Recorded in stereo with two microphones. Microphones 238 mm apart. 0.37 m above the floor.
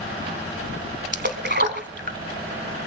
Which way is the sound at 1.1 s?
45° right (ahead or behind).